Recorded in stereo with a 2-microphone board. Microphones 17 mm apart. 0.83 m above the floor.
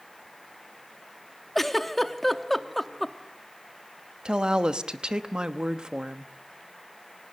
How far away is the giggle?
About 0.8 m.